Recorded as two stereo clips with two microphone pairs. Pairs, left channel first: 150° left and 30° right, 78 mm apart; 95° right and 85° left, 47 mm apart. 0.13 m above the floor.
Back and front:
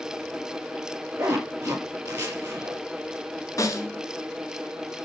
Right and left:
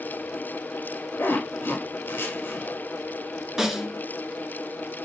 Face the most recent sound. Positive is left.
turn(degrees=160)